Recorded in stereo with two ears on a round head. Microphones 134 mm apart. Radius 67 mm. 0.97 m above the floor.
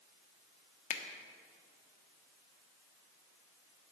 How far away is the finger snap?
About 1.1 m.